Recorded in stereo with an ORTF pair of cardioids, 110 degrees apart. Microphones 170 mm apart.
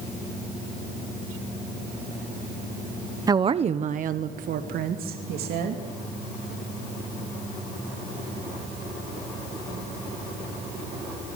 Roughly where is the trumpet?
I don't hear a trumpet.